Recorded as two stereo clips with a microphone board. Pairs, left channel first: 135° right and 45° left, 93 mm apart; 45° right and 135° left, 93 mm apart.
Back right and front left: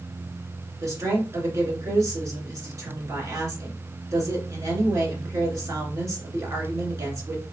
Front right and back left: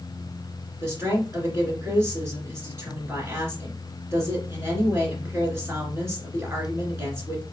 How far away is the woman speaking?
About 2.5 m.